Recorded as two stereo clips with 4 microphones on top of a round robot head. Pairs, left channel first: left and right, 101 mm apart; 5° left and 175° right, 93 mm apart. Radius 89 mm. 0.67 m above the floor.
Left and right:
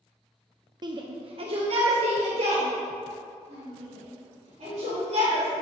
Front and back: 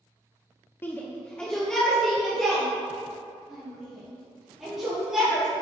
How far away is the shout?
About 0.9 m.